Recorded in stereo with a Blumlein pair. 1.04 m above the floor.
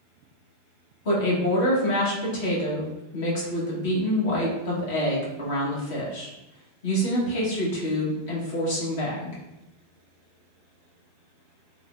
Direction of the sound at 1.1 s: 50° left.